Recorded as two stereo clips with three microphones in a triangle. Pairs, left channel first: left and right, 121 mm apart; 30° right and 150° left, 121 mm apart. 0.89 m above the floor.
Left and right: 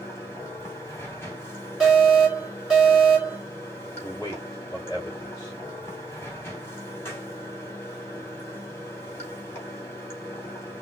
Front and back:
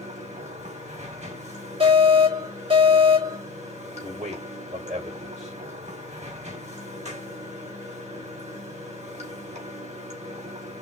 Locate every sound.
0.0 s running water: 160° left, 2.5 m
1.8 s an alarm: straight behind, 3.5 m
4.0 s a man speaking: 160° left, 3 m